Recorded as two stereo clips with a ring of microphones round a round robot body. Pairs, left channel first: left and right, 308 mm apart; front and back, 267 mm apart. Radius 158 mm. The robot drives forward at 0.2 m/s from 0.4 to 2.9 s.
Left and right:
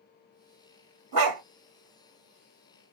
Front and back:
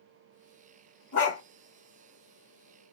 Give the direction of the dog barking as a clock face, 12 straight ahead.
2 o'clock.